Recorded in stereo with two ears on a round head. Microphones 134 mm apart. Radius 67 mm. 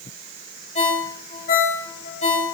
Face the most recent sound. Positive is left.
turn(degrees=45)  # may be behind; listen again after turning